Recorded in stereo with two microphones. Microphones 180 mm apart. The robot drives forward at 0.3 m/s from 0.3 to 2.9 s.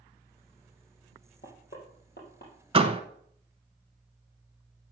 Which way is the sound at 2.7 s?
30° right (ahead or behind).